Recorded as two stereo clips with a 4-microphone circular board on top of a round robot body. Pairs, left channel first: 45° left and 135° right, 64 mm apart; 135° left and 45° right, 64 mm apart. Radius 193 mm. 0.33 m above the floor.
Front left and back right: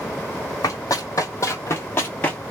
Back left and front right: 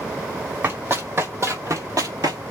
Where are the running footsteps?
10° left, 1.7 m; by 2.4 s 30° right, 0.7 m.